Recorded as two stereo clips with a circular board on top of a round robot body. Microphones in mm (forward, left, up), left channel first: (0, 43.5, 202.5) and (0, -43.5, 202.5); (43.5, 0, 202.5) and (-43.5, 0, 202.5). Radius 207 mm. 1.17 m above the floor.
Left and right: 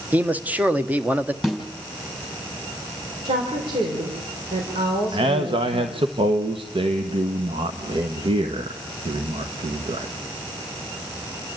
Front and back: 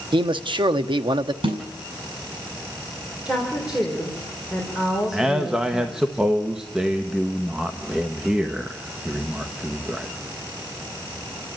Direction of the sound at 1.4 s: 175° right.